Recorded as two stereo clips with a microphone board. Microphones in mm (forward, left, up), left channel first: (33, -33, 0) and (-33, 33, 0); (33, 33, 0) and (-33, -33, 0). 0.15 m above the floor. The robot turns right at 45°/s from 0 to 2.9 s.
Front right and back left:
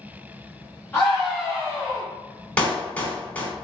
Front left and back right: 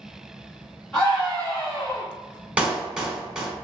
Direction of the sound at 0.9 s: 35° right.